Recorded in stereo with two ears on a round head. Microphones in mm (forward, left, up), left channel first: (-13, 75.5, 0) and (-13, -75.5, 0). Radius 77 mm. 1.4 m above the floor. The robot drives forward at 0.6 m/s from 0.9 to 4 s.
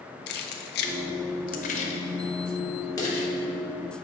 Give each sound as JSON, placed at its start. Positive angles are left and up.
{"t": 0.3, "sound": "keys jangling", "side_deg": 65, "distance_m": 0.6}